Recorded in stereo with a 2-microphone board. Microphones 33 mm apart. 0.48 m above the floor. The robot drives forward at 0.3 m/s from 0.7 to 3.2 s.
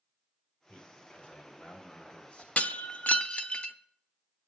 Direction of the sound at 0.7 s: 40° left (ahead or behind).